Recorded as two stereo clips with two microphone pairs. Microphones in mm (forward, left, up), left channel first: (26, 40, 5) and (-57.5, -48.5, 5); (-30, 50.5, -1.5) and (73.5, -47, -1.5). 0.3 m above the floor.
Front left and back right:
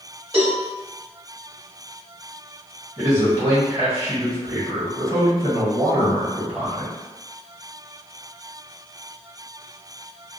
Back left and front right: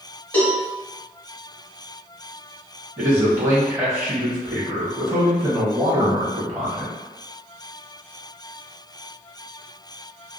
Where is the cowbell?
150° right, 1.6 m.